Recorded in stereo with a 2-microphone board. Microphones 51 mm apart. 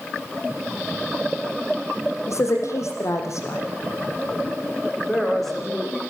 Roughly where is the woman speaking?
Left.